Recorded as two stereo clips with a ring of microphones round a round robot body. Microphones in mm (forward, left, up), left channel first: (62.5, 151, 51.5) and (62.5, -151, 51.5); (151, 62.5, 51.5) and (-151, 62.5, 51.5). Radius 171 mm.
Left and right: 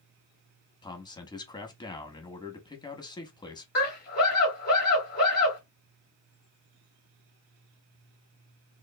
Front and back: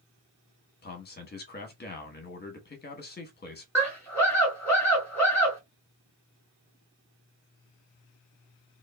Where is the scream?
75° left, 1.4 m.